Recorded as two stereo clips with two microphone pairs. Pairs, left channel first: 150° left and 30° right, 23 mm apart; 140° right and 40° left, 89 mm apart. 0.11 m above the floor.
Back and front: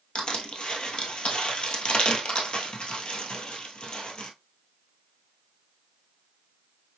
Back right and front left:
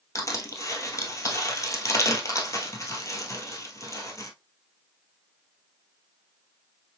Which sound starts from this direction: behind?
Crushing, at 0.1 s.